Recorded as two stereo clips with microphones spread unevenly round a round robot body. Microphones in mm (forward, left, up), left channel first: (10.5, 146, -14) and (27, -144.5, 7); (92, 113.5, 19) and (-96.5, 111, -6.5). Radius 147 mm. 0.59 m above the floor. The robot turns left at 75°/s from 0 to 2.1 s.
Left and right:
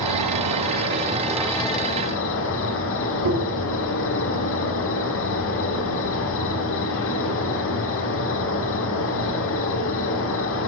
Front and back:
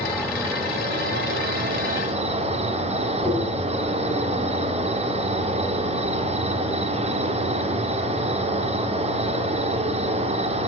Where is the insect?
70° right, 1.2 m; by 10.7 s 135° left, 1.2 m.